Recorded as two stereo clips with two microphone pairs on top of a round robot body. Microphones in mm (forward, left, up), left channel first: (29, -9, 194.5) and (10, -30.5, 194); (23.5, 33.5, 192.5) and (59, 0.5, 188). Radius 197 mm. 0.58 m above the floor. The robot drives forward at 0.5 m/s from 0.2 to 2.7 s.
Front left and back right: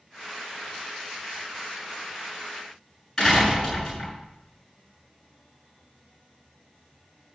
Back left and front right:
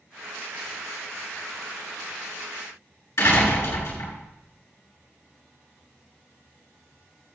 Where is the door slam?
140° left, 6.5 m.